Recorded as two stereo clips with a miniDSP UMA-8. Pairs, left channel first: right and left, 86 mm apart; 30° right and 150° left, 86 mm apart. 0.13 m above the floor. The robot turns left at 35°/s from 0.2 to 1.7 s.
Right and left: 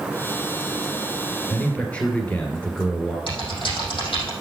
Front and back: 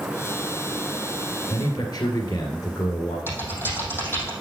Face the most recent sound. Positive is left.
turn(degrees=-90)